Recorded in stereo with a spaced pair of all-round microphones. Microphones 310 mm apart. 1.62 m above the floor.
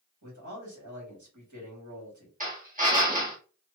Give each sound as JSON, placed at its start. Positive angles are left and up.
{"t": 0.2, "sound": "a man speaking", "side_deg": -85, "distance_m": 2.0}
{"t": 2.4, "sound": "a drill", "side_deg": -25, "distance_m": 1.3}